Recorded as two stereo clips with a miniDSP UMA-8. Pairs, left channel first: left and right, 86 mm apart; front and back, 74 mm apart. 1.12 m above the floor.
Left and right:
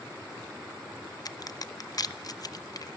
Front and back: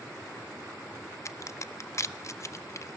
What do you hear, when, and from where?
1.2 s a crack: 45° left, 0.8 m